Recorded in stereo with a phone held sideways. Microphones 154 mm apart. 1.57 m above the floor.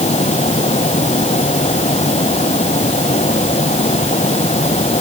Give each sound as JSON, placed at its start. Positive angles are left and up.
{"t": 0.0, "sound": "a fan", "side_deg": 45}